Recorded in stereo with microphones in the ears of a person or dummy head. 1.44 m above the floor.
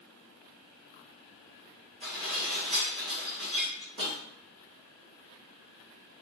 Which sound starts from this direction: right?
Dishes clattering, at 2.0 s.